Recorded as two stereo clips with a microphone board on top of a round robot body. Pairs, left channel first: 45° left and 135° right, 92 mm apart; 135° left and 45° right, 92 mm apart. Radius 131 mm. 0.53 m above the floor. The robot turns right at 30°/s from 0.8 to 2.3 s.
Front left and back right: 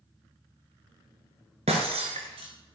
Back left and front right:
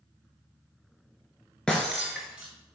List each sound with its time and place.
1.7 s breaking glass: 140° right, 0.5 m; by 2.5 s 125° right, 0.5 m